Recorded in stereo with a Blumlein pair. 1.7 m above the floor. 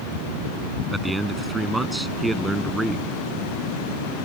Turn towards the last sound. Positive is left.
turn(degrees=-5)